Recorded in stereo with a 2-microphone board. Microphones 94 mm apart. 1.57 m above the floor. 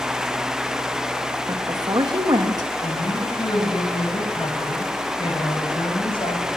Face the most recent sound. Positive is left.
turn(degrees=65)  # may be behind; listen again after turning